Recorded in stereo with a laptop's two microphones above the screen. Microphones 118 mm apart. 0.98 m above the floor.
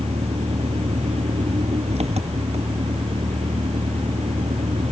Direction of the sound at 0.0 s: 60° right (ahead or behind).